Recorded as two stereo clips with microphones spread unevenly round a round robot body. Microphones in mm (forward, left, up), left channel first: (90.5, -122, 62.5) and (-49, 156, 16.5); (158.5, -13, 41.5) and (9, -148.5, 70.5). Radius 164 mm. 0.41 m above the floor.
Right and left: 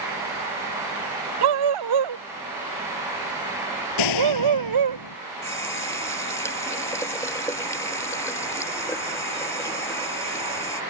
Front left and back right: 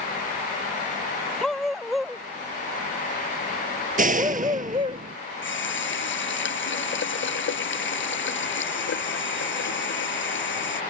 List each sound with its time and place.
1.4 s a dog barking: 130° left; by 5.0 s 145° left
4.0 s a door slam: 90° right
5.4 s a running tap: 20° left